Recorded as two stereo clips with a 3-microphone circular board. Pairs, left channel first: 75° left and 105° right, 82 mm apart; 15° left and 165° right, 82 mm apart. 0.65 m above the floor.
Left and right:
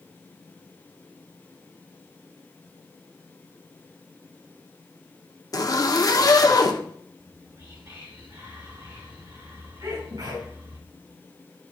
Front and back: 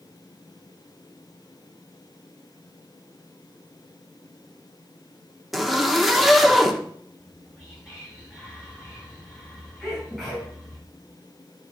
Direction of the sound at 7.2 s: 85° right.